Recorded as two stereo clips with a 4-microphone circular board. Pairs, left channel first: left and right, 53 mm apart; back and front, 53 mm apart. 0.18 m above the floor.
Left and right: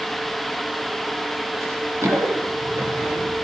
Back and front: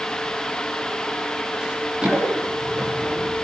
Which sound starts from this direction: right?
Running footsteps, at 1.6 s.